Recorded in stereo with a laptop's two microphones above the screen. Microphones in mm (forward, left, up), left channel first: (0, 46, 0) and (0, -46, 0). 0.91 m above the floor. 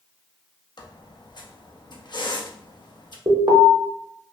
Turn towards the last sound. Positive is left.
turn(degrees=-50)  # may be behind; listen again after turning